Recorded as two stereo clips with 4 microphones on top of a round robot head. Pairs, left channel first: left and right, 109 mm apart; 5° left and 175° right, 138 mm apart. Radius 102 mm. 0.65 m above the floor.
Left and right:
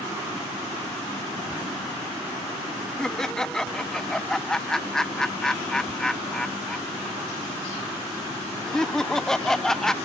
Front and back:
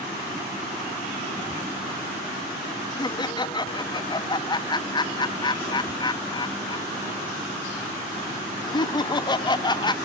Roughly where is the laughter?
Ahead.